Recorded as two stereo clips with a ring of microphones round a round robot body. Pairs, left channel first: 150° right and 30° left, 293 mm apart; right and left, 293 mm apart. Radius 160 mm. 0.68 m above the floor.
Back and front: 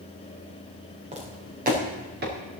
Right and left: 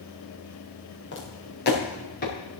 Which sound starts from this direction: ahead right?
Footsteps, at 1.1 s.